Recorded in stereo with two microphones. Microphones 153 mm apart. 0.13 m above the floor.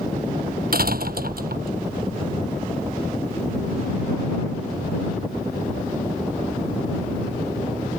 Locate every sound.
0.7 s a door slam: 75° right (ahead or behind)